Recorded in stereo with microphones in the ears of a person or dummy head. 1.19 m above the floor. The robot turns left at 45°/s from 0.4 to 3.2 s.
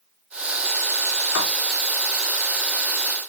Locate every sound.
1.4 s writing: 80° left, 1.2 m; by 1.4 s 75° left (ahead or behind), 1.2 m